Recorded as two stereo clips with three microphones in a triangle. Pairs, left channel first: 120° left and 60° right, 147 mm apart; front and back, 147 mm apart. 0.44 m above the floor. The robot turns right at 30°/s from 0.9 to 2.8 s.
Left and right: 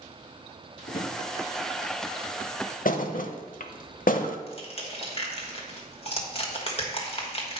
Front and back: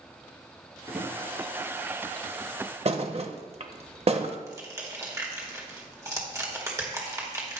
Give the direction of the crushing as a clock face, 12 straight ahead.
8 o'clock.